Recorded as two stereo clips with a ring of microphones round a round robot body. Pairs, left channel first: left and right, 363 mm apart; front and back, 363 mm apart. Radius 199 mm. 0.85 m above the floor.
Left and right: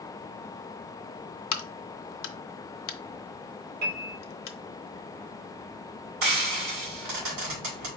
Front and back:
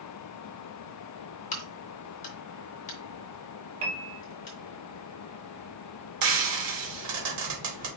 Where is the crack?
70° left, 0.8 m.